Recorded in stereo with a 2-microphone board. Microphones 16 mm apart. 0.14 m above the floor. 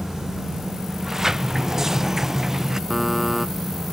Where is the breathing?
I don't hear breathing.